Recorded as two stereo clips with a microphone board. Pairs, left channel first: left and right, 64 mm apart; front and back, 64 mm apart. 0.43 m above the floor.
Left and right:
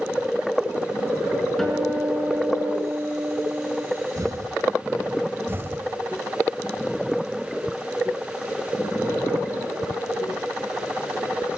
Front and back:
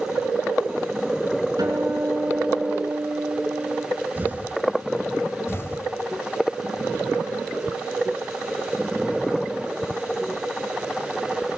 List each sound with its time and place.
1.6 s a guitar: 175° left, 5 m
4.2 s an explosion: 120° right, 1.2 m
5.5 s an explosion: 45° right, 2.0 m